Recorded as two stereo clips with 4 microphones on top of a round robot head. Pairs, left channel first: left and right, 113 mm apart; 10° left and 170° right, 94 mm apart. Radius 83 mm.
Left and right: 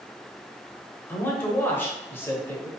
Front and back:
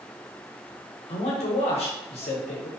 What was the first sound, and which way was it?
A man speaking, 15° left.